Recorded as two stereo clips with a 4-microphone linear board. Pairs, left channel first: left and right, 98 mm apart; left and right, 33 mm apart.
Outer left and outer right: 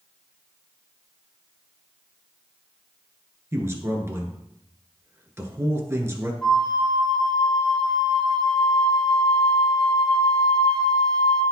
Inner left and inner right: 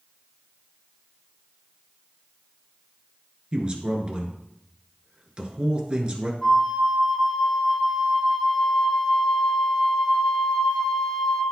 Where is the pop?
I don't hear a pop.